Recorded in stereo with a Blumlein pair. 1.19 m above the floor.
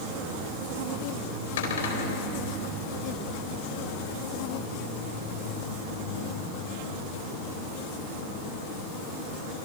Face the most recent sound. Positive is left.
turn(degrees=60)